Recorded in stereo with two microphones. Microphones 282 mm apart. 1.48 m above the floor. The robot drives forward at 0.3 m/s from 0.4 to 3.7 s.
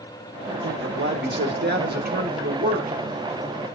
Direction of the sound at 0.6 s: 45° right (ahead or behind).